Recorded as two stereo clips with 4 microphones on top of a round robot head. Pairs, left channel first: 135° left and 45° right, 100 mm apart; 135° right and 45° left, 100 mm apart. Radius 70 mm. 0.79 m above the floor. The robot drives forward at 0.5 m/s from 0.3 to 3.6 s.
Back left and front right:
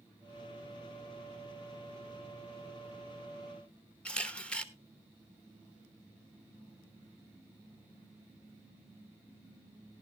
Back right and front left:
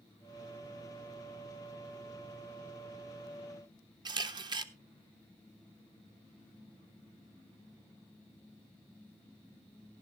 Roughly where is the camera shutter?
Ahead left.